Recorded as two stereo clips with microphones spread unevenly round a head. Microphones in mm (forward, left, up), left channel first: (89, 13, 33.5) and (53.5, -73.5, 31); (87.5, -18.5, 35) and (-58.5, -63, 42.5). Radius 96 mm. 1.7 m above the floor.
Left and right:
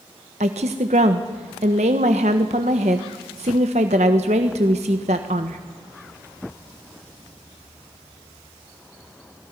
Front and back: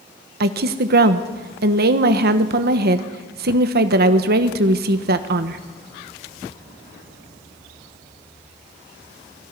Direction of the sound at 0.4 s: 150° right.